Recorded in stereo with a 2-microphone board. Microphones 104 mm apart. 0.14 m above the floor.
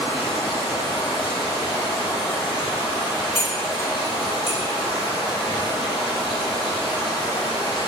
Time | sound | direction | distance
0.0 | running water | 65° left (ahead or behind) | 1.4 m
3.4 | cutlery clinking | 30° left (ahead or behind) | 0.7 m